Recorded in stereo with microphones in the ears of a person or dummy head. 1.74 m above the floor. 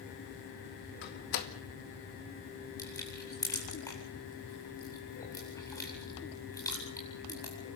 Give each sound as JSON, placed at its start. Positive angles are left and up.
{"t": 1.0, "sound": "a door slam", "side_deg": 60, "distance_m": 2.0}
{"t": 2.8, "sound": "crushing", "side_deg": 20, "distance_m": 8.5}